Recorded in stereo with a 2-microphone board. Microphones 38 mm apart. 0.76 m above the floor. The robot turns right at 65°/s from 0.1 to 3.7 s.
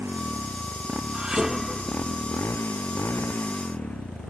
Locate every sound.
0.0 s a motorcycle: 90° right; by 4.3 s 145° left
1.1 s dishes clattering: 30° right; by 2.7 s 70° left